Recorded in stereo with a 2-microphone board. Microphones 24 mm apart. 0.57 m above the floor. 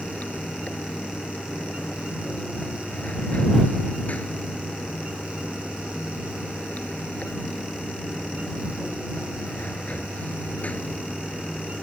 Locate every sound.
0.0 s running water: 75° left (ahead or behind)